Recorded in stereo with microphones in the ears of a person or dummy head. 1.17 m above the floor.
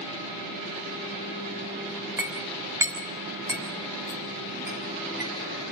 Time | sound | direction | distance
2.2 | a clink | 10° right (ahead or behind) | 3 m